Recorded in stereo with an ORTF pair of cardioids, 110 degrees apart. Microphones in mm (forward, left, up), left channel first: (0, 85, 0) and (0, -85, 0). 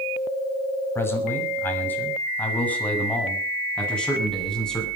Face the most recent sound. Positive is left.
turn(degrees=5)